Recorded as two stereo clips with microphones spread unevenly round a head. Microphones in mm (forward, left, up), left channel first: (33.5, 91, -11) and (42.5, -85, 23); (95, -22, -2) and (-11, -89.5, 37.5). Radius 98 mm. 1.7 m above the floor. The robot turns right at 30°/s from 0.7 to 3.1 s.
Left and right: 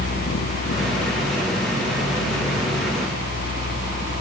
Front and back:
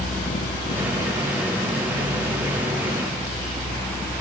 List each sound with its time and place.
Only background noise.